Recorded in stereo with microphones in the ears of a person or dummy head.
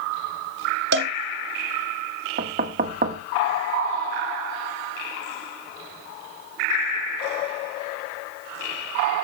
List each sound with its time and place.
0.9 s a cowbell: 70° right (ahead or behind), 1.2 m
2.4 s knocking: 40° right (ahead or behind), 1.1 m